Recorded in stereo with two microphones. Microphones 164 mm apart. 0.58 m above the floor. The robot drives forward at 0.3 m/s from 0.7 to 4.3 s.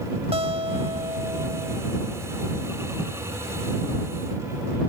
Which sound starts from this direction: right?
A guitar, at 0.3 s.